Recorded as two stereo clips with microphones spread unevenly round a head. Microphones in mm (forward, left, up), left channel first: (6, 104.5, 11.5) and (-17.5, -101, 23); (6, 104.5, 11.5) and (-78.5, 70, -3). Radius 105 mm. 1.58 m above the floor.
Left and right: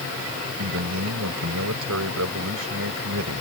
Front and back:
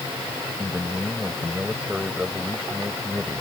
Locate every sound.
0.6 s a man speaking: 70° right